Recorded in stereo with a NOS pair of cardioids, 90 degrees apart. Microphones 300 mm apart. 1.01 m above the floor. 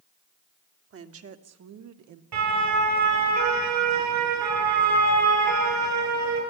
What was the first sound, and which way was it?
A woman speaking, 45° right.